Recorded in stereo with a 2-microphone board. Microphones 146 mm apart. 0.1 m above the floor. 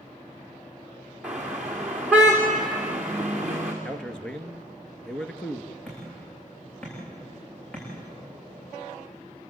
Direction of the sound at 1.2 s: 10° right (ahead or behind).